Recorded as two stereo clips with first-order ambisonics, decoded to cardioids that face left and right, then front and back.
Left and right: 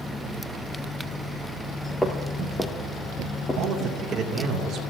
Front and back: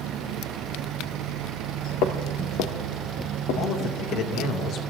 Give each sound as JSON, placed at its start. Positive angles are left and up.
{"t": 2.0, "sound": "footsteps", "azimuth_deg": 5, "distance_m": 1.3}
{"t": 3.6, "sound": "a man speaking", "azimuth_deg": -35, "distance_m": 2.5}